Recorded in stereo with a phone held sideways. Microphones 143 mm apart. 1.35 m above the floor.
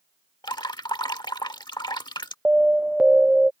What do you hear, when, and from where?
0.4 s dripping: 30° left (ahead or behind)
2.5 s an alarm: 5° right (ahead or behind)